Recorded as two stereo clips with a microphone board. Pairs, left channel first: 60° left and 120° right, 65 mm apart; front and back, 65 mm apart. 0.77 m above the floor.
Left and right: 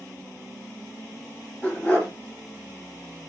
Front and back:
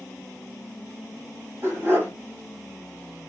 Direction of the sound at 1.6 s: 125° left.